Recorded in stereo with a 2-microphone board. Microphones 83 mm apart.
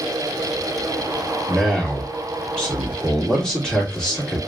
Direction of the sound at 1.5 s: 5° left (ahead or behind).